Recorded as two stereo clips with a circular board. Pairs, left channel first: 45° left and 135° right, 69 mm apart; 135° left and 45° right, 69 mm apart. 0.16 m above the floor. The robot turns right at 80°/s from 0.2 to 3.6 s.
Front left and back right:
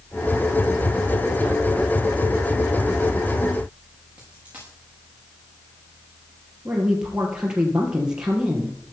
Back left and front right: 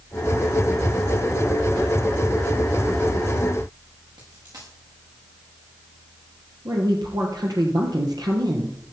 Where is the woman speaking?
55° right, 3.5 m.